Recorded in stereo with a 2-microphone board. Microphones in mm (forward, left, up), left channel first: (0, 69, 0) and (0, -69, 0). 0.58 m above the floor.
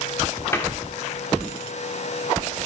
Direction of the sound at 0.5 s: 20° left (ahead or behind).